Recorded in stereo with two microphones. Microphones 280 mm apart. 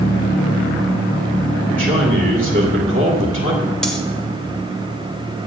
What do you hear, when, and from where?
1.7 s a man speaking: 25° right (ahead or behind), 2.0 m
3.8 s cutlery clinking: centre (ahead or behind), 1.7 m